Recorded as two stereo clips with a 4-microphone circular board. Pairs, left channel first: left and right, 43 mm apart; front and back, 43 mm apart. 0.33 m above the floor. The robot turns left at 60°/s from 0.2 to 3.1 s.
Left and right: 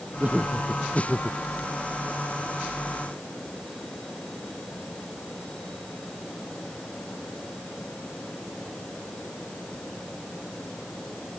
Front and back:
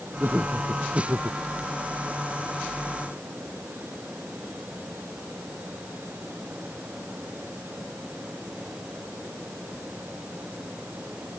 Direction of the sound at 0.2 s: 140° right.